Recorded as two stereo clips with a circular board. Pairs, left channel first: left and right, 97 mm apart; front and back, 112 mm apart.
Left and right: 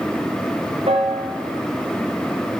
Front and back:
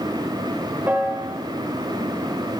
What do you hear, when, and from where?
0.9 s a piano: 105° right, 4.5 m